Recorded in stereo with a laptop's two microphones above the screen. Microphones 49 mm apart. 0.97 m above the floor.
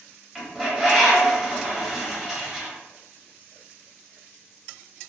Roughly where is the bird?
Centre.